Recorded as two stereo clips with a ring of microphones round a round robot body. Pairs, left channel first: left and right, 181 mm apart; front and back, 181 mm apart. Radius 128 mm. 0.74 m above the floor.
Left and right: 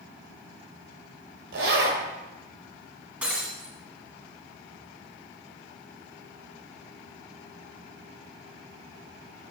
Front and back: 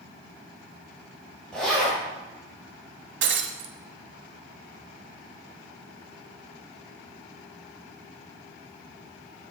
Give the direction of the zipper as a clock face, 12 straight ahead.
3 o'clock.